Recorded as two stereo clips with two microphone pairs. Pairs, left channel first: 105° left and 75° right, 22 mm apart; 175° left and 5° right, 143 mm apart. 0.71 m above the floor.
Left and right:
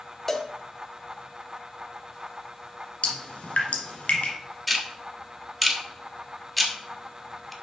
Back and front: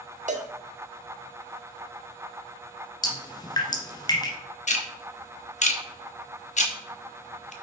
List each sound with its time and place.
0.3 s a cowbell: 30° left, 0.9 m
3.0 s dripping: 115° left, 1.7 m
4.7 s ticking: 170° right, 1.1 m